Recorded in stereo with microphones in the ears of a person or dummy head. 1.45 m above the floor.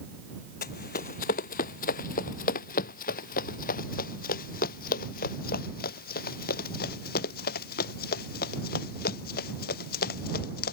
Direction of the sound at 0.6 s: 55° left (ahead or behind).